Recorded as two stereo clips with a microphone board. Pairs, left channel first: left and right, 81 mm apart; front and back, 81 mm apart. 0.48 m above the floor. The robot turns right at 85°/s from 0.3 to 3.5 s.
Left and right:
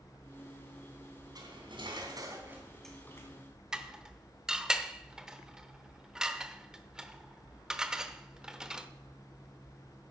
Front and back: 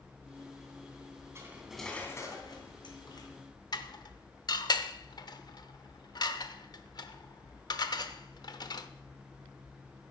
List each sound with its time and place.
1.4 s cutlery clinking: 125° right, 2.5 m; by 3.3 s 40° left, 2.5 m
3.7 s dishes clattering: 10° right, 0.8 m